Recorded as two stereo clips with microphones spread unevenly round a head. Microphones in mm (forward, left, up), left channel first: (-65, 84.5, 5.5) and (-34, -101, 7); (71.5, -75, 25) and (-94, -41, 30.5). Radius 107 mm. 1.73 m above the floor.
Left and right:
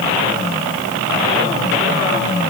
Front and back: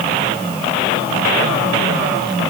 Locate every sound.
Only background noise.